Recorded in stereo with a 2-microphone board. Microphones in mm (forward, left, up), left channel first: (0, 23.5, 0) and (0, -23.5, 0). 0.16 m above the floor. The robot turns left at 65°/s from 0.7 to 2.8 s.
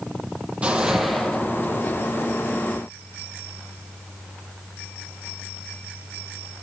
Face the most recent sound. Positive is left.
turn(degrees=70)